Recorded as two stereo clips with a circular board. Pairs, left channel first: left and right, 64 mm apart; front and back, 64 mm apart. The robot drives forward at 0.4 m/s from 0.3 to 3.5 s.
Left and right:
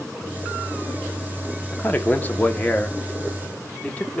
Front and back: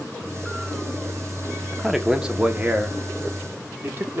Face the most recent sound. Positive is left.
turn(degrees=150)